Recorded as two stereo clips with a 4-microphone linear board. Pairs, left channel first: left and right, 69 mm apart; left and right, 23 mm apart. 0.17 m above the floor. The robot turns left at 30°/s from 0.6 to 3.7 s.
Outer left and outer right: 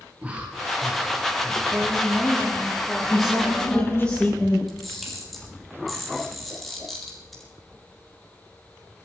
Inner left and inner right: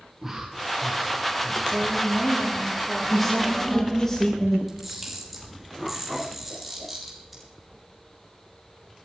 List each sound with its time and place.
0.2 s breathing: 160° right, 6.5 m; by 1.6 s 170° left, 6.5 m
1.7 s a woman speaking: 155° right, 5 m; by 4.1 s 145° left, 5 m
3.1 s a man speaking: 5° right (ahead or behind), 6 m; by 4.6 s 15° left (ahead or behind), 6 m
4.7 s a camera shutter: centre (ahead or behind), 6.5 m